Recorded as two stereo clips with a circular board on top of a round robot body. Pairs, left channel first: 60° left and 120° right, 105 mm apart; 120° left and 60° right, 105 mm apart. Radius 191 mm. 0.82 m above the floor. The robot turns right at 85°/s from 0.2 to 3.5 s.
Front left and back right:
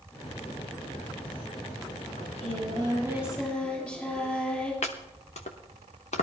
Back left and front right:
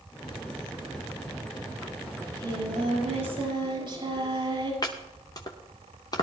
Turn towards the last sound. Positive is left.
turn(degrees=65)